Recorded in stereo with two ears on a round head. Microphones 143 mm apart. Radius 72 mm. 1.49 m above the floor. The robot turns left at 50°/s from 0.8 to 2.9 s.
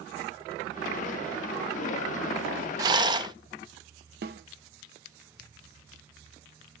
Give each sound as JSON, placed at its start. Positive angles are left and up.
{"t": 2.8, "sound": "a rattle", "side_deg": -20, "distance_m": 0.5}
{"t": 4.2, "sound": "a snare drum", "side_deg": -70, "distance_m": 1.0}